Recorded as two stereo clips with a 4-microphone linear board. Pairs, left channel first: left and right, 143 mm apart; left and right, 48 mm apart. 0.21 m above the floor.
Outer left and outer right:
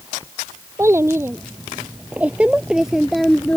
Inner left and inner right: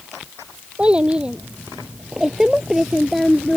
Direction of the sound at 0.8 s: 20° right (ahead or behind).